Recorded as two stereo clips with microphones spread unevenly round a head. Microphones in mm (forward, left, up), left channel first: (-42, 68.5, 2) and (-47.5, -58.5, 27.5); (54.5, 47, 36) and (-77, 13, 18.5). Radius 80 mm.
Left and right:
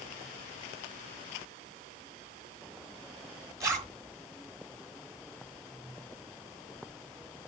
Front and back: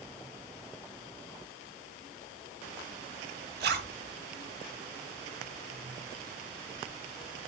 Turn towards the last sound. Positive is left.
turn(degrees=-155)